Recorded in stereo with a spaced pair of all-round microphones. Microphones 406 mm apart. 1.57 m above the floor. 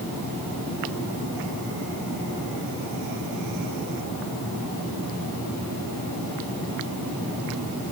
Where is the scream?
I don't hear a scream.